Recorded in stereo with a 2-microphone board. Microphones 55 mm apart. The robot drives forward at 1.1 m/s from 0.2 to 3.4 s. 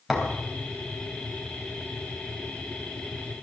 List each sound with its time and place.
0.1 s a thud: centre (ahead or behind), 3.5 m